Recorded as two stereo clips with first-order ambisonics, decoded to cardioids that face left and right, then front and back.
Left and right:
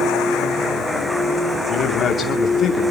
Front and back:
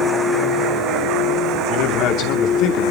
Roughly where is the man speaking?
Ahead left.